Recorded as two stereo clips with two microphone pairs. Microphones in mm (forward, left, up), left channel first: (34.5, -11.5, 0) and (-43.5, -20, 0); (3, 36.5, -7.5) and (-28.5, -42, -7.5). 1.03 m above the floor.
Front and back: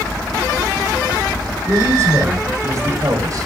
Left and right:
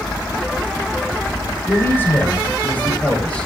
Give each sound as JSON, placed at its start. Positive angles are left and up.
{"t": 1.7, "sound": "a man speaking", "azimuth_deg": 130, "distance_m": 4.5}